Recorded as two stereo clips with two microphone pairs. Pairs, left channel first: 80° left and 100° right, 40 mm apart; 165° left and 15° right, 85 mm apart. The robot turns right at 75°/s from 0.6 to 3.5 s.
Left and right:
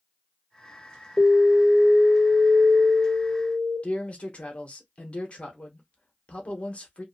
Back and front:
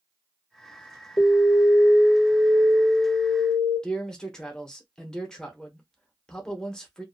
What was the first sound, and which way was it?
An alarm, 140° left.